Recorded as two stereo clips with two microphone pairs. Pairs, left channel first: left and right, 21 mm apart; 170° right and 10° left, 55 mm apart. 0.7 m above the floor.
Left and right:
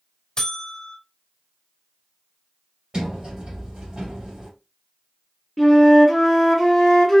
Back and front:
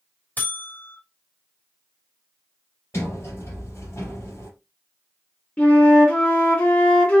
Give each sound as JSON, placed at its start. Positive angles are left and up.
{"t": 0.4, "sound": "a buzzer", "azimuth_deg": 140, "distance_m": 1.2}
{"t": 2.9, "sound": "a sliding door", "azimuth_deg": -130, "distance_m": 2.0}
{"t": 5.6, "sound": "a flute", "azimuth_deg": 160, "distance_m": 1.2}